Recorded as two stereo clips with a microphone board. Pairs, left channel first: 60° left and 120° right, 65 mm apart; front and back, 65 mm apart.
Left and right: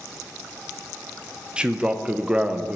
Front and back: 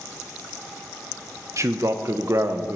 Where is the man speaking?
170° left, 0.9 m.